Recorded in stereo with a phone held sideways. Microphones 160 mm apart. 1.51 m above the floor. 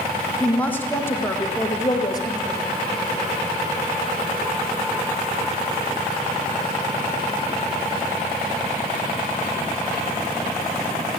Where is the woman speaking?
5° left (ahead or behind), 1.6 m; by 2.6 s 25° left (ahead or behind), 2.5 m.